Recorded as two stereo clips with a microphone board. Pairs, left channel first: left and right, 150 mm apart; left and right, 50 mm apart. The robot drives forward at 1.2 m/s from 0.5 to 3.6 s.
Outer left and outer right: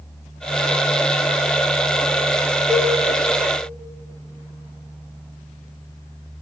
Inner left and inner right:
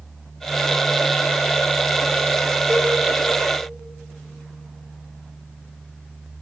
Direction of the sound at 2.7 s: 25° right (ahead or behind).